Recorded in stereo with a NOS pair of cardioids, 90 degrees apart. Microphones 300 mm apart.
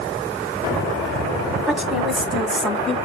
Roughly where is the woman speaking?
Ahead.